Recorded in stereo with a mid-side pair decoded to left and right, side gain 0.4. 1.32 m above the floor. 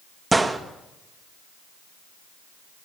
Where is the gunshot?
25° right, 1.9 m.